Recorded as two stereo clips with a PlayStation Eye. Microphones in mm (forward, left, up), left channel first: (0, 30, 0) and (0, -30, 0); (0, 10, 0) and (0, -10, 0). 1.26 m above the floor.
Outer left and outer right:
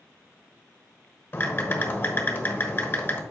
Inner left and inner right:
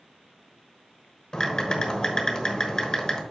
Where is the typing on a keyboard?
40° left (ahead or behind), 1.2 m.